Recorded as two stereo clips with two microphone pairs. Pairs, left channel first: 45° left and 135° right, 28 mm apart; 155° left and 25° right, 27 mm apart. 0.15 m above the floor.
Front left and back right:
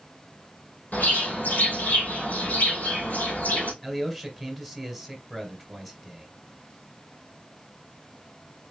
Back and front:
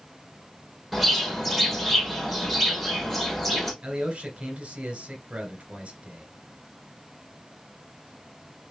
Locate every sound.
0.9 s a bird: 60° left, 2.5 m
3.8 s a man speaking: 45° right, 1.9 m